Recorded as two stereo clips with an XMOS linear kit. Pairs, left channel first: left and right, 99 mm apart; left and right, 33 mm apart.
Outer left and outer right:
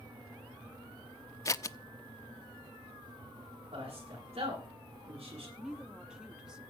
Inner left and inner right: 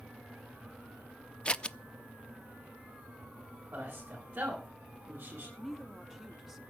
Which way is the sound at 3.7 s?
80° right.